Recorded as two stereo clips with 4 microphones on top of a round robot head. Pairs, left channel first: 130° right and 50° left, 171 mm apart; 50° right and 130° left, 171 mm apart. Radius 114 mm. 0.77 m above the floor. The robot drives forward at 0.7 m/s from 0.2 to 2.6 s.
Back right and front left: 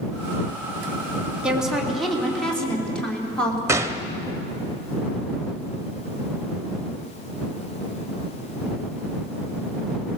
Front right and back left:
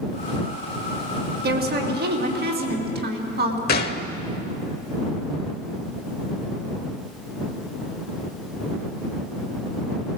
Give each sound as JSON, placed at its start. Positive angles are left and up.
{"t": 1.4, "sound": "a woman speaking", "azimuth_deg": 135, "distance_m": 2.5}
{"t": 3.7, "sound": "a gunshot", "azimuth_deg": -20, "distance_m": 0.9}